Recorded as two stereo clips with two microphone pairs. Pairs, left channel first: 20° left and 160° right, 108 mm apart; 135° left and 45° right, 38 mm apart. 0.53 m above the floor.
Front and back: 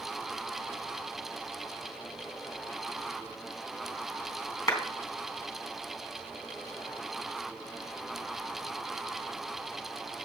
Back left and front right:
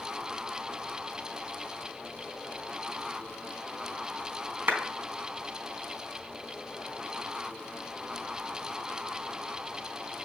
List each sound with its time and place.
4.7 s a clap: 40° right, 3.5 m